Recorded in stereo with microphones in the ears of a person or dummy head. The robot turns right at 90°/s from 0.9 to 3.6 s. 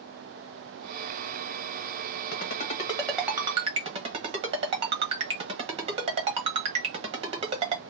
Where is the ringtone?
60° left (ahead or behind), 1.2 m; by 7.8 s 30° right (ahead or behind), 1.2 m.